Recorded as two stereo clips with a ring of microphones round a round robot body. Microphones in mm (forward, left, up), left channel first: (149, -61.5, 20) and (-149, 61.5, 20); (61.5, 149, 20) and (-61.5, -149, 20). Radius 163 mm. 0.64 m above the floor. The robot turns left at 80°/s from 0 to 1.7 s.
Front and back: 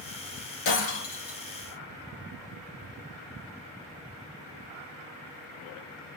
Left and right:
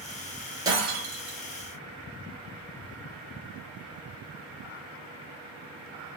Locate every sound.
0.7 s breaking glass: 30° right, 2 m; by 1.4 s 90° right, 2 m